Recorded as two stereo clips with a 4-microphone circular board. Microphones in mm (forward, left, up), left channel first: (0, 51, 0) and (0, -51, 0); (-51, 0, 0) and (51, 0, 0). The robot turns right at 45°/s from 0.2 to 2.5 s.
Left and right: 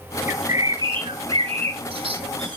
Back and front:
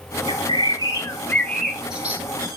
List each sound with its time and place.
0.3 s a bird: 155° right, 0.9 m; by 2.6 s 55° right, 0.9 m